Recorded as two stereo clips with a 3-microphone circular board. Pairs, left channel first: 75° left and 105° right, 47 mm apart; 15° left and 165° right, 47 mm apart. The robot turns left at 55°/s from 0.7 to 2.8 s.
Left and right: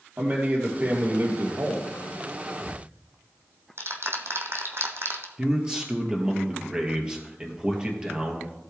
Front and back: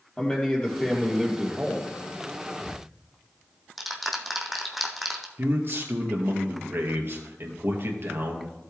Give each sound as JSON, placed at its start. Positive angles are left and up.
{"t": 0.2, "sound": "a man speaking", "azimuth_deg": -50, "distance_m": 3.5}
{"t": 2.6, "sound": "ticking", "azimuth_deg": -65, "distance_m": 1.4}
{"t": 5.4, "sound": "a man speaking", "azimuth_deg": -170, "distance_m": 2.0}